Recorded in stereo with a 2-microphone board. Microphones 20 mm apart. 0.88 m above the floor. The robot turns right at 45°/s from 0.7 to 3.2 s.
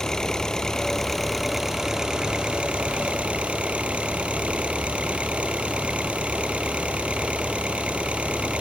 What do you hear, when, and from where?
0.0 s an engine running: 155° left; by 8.6 s 95° right